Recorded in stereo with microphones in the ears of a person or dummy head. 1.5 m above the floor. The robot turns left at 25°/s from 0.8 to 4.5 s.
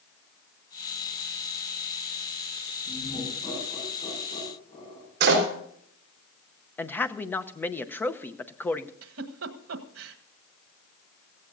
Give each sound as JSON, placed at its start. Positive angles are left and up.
{"t": 2.9, "sound": "laughter", "side_deg": -5, "distance_m": 6.5}
{"t": 5.2, "sound": "a door slam", "side_deg": -65, "distance_m": 4.0}
{"t": 6.8, "sound": "a man speaking", "side_deg": 10, "distance_m": 0.8}
{"t": 9.0, "sound": "a giggle", "side_deg": -80, "distance_m": 1.4}